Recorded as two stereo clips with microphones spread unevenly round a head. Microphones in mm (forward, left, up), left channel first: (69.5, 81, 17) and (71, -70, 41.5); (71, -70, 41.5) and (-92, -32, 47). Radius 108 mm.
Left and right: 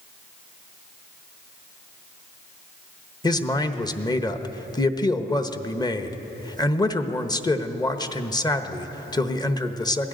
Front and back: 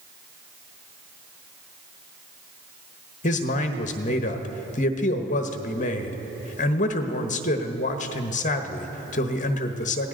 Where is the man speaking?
30° left, 1.1 m.